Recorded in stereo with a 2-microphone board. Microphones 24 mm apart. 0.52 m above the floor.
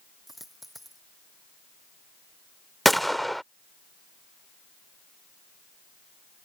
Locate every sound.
0.3 s a dropped coin: 5° right (ahead or behind)
2.9 s a gunshot: 5° left (ahead or behind)